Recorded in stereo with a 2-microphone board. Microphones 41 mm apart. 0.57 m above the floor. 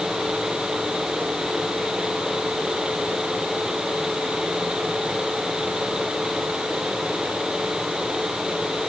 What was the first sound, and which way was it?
Only background noise.